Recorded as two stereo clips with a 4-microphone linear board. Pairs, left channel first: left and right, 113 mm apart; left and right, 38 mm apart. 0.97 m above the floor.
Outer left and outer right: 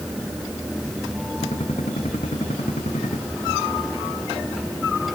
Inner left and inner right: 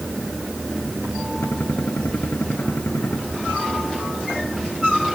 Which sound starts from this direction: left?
A gunshot, at 1.4 s.